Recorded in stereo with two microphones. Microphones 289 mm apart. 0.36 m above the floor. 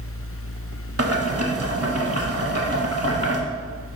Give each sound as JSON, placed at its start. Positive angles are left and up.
{"t": 1.0, "sound": "boiling", "side_deg": -55, "distance_m": 0.9}